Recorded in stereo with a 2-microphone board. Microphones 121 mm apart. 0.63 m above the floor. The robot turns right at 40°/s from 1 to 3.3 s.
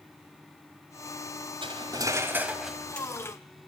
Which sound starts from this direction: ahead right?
Cutlery clinking, at 1.6 s.